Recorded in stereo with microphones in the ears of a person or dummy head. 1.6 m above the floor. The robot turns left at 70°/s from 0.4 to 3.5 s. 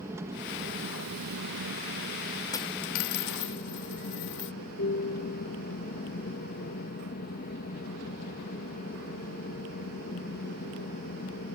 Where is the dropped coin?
20° left (ahead or behind); by 4.5 s 60° left (ahead or behind).